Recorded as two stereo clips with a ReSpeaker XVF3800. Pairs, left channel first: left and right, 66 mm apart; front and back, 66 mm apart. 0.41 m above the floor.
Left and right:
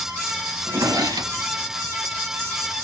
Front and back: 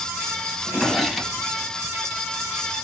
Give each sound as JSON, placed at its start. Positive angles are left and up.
{"t": 0.6, "sound": "a drawer", "azimuth_deg": -90, "distance_m": 1.0}